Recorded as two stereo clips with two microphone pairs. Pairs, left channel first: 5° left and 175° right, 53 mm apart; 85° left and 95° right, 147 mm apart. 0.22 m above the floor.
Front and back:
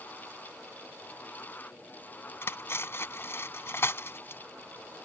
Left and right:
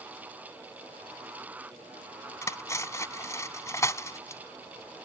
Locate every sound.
2.4 s cutlery clinking: 15° left